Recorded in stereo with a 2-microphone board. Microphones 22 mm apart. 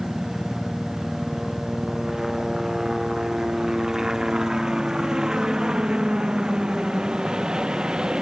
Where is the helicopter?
10° right (ahead or behind); by 8.2 s 40° right (ahead or behind).